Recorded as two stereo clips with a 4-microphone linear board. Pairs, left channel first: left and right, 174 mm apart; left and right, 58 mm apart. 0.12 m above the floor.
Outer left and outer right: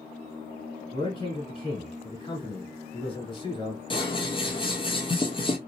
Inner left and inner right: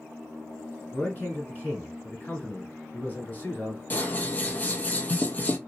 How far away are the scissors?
About 0.5 m.